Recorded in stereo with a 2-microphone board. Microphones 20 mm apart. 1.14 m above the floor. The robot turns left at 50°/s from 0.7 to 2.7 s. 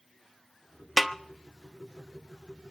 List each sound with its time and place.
1.0 s a snare drum: 10° left (ahead or behind), 0.7 m; by 1.2 s centre (ahead or behind), 0.7 m